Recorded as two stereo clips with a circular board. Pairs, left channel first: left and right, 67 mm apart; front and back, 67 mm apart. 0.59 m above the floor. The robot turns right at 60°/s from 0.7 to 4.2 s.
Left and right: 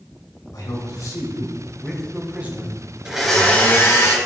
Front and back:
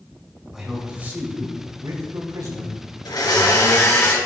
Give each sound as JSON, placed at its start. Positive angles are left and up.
{"t": 0.5, "sound": "a man speaking", "azimuth_deg": 95, "distance_m": 2.5}
{"t": 3.0, "sound": "a blender", "azimuth_deg": -10, "distance_m": 2.5}